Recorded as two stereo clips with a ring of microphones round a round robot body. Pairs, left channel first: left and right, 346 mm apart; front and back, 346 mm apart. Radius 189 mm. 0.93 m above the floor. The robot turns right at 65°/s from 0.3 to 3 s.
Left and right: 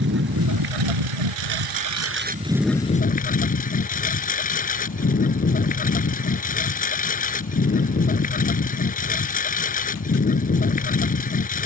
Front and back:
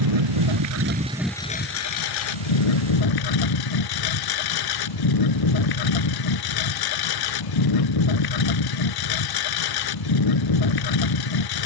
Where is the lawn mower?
155° right; by 11.7 s 20° left.